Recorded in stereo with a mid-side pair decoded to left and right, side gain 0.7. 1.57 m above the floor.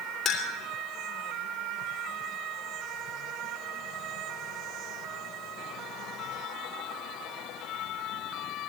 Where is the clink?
40° left, 3.5 m.